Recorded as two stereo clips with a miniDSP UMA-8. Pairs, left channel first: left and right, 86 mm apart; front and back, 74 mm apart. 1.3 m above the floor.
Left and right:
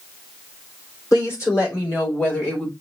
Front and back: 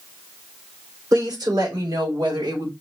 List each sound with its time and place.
1.1 s a woman speaking: 140° left, 3.5 m; by 2.7 s 160° left, 3 m